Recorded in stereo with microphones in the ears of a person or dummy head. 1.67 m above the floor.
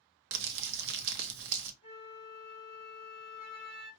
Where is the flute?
35° left (ahead or behind), 1.7 m.